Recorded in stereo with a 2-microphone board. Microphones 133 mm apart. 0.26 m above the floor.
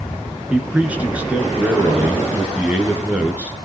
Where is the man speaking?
10° right (ahead or behind), 3.5 m.